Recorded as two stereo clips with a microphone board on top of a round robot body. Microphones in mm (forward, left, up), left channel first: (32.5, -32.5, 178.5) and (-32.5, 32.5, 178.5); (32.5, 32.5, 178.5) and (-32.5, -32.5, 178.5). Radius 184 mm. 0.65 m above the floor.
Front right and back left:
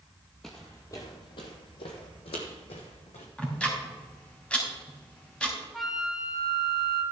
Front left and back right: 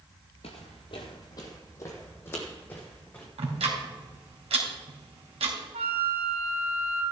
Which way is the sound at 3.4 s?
125° right.